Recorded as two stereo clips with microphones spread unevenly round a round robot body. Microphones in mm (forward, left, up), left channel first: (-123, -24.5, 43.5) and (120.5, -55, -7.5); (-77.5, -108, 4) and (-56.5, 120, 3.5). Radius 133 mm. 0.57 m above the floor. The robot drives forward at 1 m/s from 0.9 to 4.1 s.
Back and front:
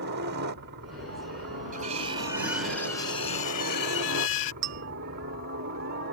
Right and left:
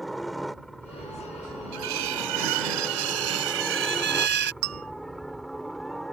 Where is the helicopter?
5° right.